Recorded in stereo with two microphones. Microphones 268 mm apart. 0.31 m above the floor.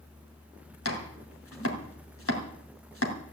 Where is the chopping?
55° left (ahead or behind), 3 m.